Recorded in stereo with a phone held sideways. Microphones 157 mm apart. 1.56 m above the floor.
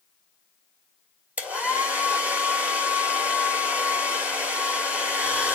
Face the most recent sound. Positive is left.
turn(degrees=-10)  # may be behind; listen again after turning